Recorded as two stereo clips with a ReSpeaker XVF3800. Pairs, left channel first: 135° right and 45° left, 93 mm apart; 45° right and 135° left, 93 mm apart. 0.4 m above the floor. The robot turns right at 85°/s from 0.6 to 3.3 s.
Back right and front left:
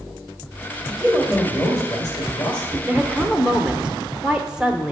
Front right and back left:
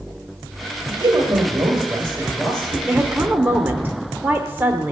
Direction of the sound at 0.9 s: 115° left.